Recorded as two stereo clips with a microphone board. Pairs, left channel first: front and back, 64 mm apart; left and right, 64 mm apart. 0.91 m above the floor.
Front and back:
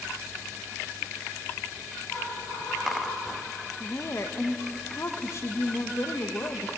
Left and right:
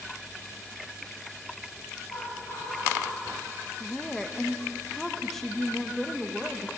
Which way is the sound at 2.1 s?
65° left.